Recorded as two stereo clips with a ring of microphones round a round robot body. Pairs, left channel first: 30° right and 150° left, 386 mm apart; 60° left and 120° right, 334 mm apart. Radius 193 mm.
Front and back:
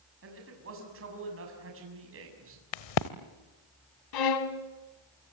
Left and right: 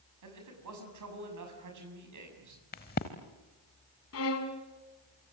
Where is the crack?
10° right, 1.1 m.